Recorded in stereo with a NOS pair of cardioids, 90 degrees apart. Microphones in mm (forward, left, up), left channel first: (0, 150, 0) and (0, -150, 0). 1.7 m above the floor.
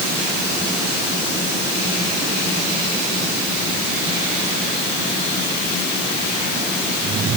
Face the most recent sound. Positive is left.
No sound to turn to.